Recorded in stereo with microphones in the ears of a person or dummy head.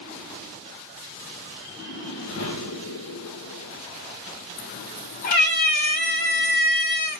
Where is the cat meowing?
45° left (ahead or behind), 1.1 m.